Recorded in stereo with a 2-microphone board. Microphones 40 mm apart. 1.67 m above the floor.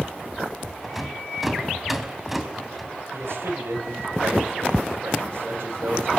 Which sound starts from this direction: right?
A man speaking, at 3.1 s.